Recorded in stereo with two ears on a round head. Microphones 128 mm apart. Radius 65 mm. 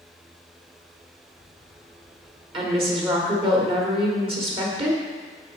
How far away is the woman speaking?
About 1.7 m.